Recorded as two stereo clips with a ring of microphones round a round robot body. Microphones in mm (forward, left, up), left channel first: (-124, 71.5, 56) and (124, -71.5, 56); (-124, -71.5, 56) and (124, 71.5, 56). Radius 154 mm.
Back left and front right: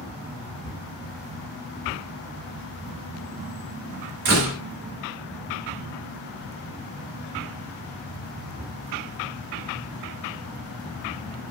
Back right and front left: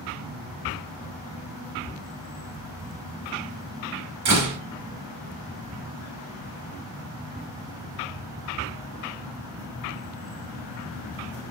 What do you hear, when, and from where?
4.2 s a door slam: 5° left, 1.4 m